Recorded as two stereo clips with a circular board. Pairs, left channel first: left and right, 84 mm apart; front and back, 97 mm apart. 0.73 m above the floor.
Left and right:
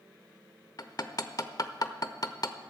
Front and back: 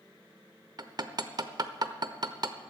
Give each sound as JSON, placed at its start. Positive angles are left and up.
{"t": 0.8, "sound": "hammering", "azimuth_deg": 135, "distance_m": 0.8}